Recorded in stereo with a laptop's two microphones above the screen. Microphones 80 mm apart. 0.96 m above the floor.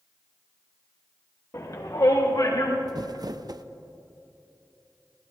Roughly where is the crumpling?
Right.